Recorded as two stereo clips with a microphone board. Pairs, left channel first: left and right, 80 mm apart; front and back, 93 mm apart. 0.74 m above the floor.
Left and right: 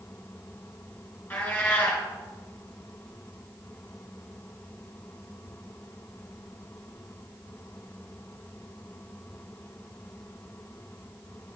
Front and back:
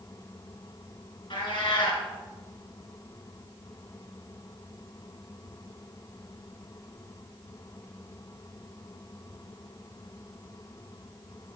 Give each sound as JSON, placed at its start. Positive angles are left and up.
{"t": 1.3, "sound": "a cat meowing", "azimuth_deg": 20, "distance_m": 2.0}